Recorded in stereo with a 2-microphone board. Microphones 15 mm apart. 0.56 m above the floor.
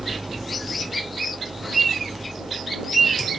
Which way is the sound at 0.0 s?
75° right (ahead or behind).